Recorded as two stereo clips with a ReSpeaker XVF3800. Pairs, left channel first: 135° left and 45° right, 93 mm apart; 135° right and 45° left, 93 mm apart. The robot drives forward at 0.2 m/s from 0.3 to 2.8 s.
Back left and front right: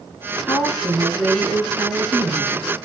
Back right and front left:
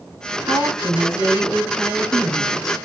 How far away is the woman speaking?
About 1.7 m.